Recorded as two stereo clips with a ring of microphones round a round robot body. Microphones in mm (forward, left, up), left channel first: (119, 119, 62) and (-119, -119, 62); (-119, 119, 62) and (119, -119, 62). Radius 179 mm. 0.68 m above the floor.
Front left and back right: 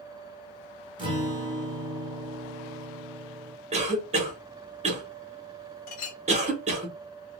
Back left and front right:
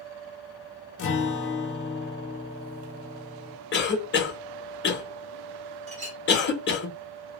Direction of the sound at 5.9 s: 25° left.